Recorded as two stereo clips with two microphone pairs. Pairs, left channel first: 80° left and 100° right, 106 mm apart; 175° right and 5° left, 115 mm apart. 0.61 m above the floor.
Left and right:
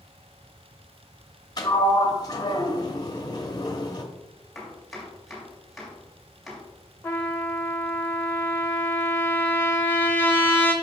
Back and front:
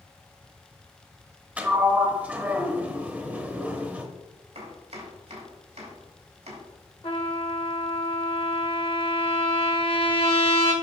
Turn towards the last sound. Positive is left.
turn(degrees=150)